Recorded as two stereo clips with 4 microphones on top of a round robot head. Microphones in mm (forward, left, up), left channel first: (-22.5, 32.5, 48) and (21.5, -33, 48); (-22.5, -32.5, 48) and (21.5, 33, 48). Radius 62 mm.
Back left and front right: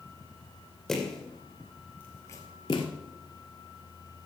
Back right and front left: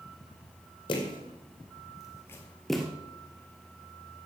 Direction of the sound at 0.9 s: 150° right.